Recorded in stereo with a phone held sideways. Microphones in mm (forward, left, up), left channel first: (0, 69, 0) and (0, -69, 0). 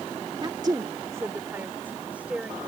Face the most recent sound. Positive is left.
turn(degrees=-10)  # may be behind; listen again after turning